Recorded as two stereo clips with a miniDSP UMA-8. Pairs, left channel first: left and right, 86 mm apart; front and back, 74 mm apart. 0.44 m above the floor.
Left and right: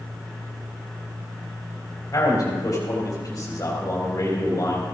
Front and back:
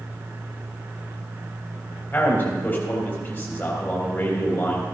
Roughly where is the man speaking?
Ahead left.